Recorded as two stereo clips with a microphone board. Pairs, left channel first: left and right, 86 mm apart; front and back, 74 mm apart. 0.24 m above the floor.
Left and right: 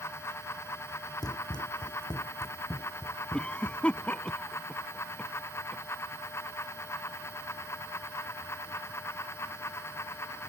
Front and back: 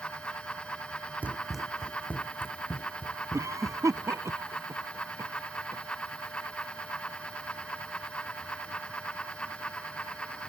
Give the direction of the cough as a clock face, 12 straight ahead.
7 o'clock.